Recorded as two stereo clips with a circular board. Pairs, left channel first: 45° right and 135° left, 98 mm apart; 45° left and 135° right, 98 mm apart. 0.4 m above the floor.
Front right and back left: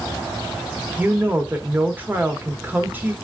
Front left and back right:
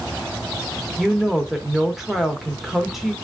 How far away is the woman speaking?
About 0.8 m.